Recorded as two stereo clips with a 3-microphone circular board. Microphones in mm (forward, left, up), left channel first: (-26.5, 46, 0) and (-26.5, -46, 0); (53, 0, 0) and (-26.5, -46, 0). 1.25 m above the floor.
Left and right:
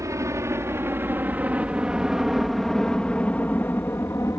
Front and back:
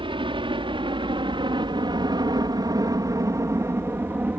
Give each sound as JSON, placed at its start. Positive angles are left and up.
{"t": 0.0, "sound": "a helicopter", "azimuth_deg": -140}